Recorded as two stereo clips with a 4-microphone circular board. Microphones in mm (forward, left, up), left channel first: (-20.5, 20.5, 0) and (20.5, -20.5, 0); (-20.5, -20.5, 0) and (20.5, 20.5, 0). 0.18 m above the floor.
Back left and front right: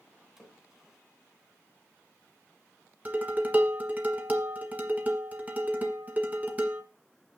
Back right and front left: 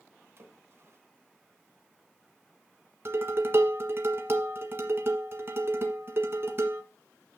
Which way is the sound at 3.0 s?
10° left.